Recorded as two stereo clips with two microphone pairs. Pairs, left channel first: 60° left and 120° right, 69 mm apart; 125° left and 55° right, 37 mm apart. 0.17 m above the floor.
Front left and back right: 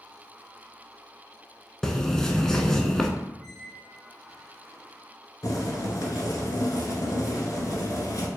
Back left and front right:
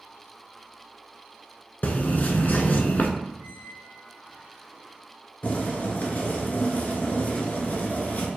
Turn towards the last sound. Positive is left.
turn(degrees=90)